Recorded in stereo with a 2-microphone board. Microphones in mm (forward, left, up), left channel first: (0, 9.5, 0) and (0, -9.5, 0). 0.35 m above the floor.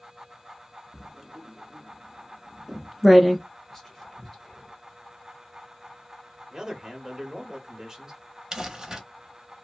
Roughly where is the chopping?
No chopping in this recording.